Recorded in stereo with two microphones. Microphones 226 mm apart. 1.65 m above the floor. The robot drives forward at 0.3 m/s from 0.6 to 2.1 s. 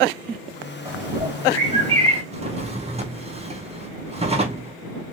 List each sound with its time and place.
0.8 s a bird: 25° right (ahead or behind), 1.4 m
2.3 s a drawer: 25° right (ahead or behind), 0.7 m